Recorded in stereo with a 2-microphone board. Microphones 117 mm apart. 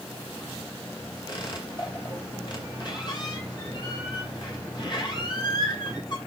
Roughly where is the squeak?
Left.